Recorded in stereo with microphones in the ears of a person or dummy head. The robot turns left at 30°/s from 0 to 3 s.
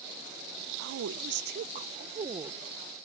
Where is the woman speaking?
115° right; by 2.6 s 165° right.